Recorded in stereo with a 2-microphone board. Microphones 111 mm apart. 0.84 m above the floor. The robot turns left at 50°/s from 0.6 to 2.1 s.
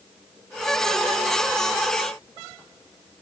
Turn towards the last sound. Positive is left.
No sound to turn to.